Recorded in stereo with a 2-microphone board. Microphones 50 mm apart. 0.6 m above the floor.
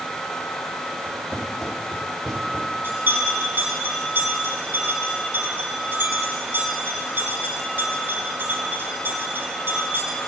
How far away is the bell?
About 4 m.